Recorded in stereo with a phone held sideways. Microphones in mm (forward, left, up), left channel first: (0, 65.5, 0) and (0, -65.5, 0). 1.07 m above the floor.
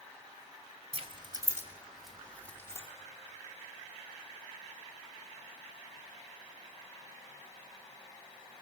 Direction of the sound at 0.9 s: 50° right (ahead or behind).